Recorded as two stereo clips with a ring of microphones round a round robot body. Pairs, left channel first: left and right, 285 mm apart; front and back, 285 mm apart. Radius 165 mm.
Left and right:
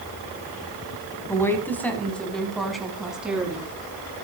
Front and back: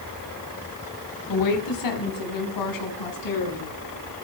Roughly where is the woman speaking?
Ahead.